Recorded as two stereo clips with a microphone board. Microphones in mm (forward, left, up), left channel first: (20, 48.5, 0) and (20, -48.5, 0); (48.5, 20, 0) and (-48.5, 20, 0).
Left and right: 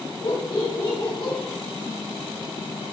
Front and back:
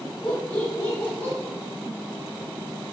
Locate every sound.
0.2 s laughter: 70° left, 2.5 m; by 1.4 s 65° left, 3 m